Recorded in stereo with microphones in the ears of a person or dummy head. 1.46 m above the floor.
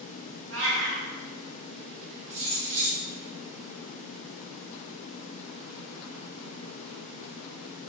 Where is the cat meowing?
65° right (ahead or behind), 1.6 m.